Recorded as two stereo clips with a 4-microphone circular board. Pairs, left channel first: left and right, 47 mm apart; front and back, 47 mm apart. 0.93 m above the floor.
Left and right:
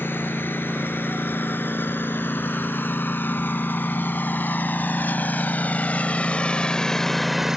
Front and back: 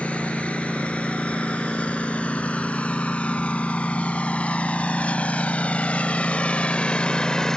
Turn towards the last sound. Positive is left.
turn(degrees=-50)